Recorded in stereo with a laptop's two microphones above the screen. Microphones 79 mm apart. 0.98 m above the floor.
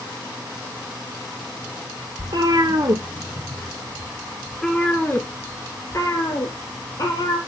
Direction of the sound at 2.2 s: 60° right (ahead or behind).